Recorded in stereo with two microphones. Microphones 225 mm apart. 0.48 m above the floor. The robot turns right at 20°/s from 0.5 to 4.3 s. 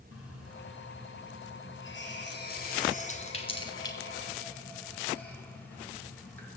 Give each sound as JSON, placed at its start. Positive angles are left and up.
{"t": 0.1, "sound": "a running tap", "side_deg": 80, "distance_m": 3.0}